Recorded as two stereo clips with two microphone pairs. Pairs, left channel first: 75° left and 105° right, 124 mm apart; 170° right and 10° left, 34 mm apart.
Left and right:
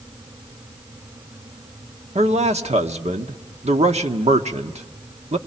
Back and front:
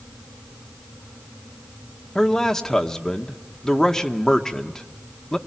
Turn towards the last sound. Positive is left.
turn(degrees=-95)